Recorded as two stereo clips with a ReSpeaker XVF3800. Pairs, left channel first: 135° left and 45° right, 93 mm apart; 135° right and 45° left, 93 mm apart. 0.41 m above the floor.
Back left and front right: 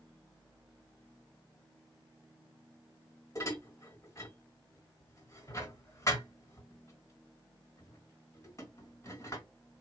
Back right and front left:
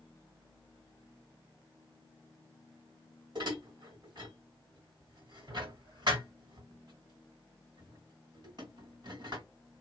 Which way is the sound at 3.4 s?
80° left.